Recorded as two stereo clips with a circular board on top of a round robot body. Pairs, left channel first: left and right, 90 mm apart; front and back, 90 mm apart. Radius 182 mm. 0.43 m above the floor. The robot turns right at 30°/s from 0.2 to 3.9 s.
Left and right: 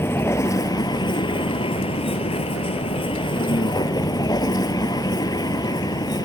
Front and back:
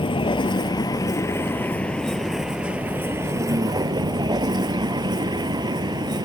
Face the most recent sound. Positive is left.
turn(degrees=140)